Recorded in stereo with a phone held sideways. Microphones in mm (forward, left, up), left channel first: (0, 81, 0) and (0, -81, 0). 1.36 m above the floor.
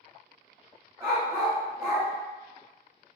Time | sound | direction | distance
1.0 | a dog barking | 15° right (ahead or behind) | 1.2 m